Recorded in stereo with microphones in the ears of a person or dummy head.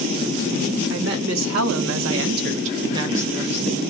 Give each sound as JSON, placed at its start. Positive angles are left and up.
{"t": 0.9, "sound": "a woman speaking", "side_deg": -70, "distance_m": 0.9}